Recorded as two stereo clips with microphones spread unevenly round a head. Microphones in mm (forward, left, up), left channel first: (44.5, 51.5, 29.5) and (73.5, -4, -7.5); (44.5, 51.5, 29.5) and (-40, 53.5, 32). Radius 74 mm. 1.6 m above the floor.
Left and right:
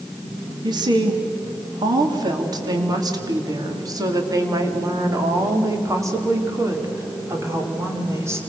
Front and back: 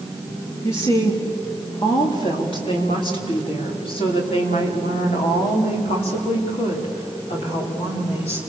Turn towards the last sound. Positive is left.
turn(degrees=-15)